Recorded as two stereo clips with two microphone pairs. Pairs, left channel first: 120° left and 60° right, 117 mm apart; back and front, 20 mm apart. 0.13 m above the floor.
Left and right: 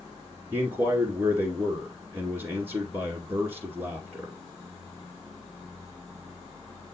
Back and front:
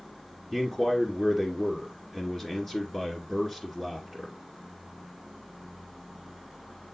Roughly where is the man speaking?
Behind right.